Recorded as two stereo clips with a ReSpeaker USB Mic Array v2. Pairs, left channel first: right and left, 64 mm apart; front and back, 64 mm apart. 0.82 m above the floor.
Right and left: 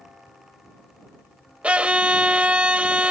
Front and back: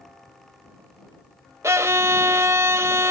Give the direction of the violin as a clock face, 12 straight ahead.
7 o'clock.